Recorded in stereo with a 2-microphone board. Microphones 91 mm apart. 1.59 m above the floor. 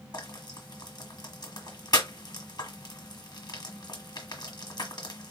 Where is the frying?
50° left (ahead or behind), 1.4 m.